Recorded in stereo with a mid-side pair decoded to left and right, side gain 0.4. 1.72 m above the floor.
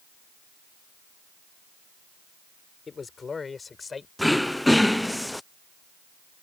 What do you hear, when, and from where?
2.9 s a man speaking: 40° left; by 4.1 s 35° left
4.2 s throat clearing: 5° left